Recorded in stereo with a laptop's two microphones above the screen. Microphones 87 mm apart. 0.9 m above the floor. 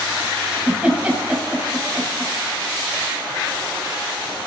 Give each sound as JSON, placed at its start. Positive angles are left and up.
{"t": 0.5, "sound": "a giggle", "side_deg": -15, "distance_m": 7.0}